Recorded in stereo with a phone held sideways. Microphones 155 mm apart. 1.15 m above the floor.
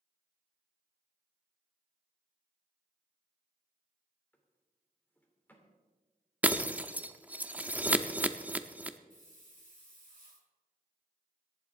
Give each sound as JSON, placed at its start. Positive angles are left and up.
{"t": 4.3, "sound": "a drawer", "side_deg": 10, "distance_m": 2.5}
{"t": 6.4, "sound": "breaking glass", "side_deg": -10, "distance_m": 0.7}
{"t": 9.1, "sound": "a hiss", "side_deg": -60, "distance_m": 8.0}